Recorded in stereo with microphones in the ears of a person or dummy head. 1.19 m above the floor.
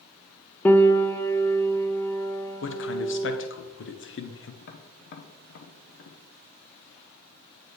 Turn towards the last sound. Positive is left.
turn(degrees=55)  # may be behind; listen again after turning